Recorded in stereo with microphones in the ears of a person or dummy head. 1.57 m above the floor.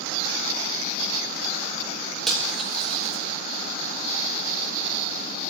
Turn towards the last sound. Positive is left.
turn(degrees=0)  # may be behind; listen again after turning